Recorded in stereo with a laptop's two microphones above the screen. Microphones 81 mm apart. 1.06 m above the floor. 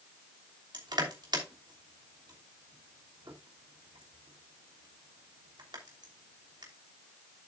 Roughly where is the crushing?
Right.